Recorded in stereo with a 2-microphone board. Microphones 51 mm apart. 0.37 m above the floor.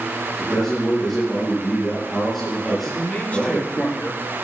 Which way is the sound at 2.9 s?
25° left (ahead or behind).